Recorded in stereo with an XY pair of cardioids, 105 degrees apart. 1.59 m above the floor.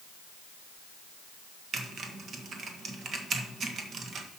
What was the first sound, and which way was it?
Typing on a keyboard, 50° right.